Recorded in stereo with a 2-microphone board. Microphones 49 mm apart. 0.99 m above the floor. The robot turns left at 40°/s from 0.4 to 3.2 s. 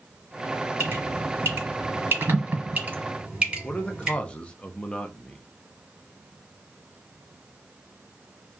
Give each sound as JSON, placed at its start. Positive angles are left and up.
{"t": 0.8, "sound": "dripping", "side_deg": -45, "distance_m": 1.4}
{"t": 3.6, "sound": "a man speaking", "side_deg": 20, "distance_m": 0.6}